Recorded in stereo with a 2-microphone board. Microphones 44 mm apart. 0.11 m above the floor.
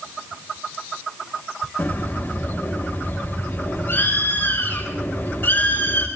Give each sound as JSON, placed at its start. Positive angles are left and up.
{"t": 1.8, "sound": "a bird", "side_deg": 50, "distance_m": 7.5}